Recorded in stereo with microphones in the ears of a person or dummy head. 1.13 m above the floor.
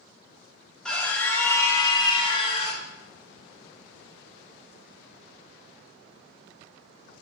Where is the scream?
5° left (ahead or behind), 2.0 m; by 2.8 s 35° left (ahead or behind), 1.9 m.